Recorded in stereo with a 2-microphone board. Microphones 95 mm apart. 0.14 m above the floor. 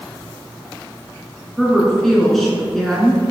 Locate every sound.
1.6 s a woman speaking: 5° left (ahead or behind), 1.6 m